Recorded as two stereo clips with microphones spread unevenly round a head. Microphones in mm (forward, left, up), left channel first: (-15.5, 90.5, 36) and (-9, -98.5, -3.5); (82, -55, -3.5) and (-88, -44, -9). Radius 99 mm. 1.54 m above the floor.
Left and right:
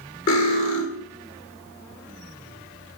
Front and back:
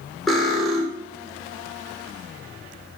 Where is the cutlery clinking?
85° left, 3 m.